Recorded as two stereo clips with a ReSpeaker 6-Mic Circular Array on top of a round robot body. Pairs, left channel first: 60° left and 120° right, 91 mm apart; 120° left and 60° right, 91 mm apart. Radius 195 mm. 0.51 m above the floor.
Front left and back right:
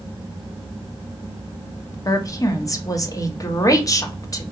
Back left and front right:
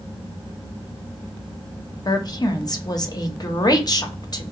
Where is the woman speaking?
95° left, 1.1 m.